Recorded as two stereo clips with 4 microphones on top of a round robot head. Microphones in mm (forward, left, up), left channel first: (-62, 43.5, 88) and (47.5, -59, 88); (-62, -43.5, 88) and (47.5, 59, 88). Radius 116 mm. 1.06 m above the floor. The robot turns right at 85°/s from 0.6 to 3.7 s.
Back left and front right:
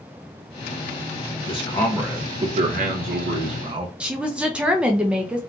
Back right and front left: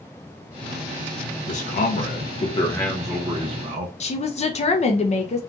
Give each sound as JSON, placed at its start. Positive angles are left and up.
{"t": 1.5, "sound": "a man speaking", "azimuth_deg": -175, "distance_m": 0.5}
{"t": 4.0, "sound": "a woman speaking", "azimuth_deg": -125, "distance_m": 0.6}